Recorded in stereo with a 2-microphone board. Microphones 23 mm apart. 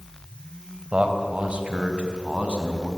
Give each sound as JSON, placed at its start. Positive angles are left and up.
{"t": 0.9, "sound": "a man speaking", "side_deg": -55, "distance_m": 2.5}